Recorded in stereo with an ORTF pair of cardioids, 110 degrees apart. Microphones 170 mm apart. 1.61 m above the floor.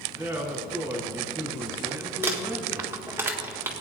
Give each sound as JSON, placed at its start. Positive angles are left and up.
{"t": 0.2, "sound": "a man speaking", "azimuth_deg": -15, "distance_m": 3.5}
{"t": 2.2, "sound": "crumpling", "azimuth_deg": -15, "distance_m": 1.8}